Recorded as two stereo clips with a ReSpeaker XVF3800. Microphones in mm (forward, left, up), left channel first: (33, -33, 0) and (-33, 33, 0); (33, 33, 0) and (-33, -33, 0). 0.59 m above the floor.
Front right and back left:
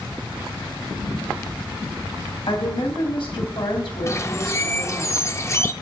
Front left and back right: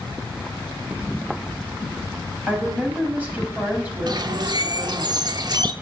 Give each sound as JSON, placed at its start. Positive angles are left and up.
{"t": 2.5, "sound": "a woman speaking", "azimuth_deg": -65, "distance_m": 3.0}
{"t": 4.1, "sound": "a bird", "azimuth_deg": -100, "distance_m": 0.7}